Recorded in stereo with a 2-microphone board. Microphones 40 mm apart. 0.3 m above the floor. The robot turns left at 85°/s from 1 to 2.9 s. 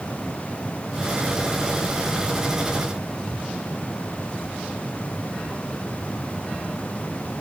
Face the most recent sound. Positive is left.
No sound to turn to.